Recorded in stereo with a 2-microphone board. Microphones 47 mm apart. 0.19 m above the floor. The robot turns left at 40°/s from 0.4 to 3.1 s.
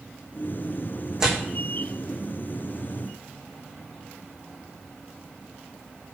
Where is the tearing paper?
15° right (ahead or behind), 3.5 m; by 1.4 s 5° right (ahead or behind), 3.5 m.